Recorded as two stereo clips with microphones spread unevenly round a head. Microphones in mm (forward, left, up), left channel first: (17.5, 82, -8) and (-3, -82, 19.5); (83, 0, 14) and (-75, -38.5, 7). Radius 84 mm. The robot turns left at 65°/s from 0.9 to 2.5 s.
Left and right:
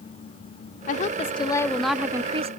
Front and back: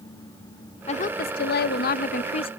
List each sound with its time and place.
0.9 s a woman speaking: 60° left; by 2.5 s 40° right